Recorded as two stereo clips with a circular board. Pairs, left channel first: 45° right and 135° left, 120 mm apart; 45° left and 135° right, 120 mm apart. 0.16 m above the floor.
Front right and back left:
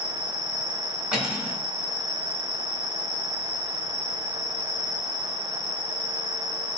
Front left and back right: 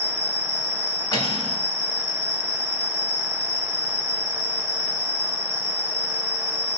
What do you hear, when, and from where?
0.0 s an insect: 145° left, 1.6 m
1.1 s cutlery clinking: 55° left, 1.0 m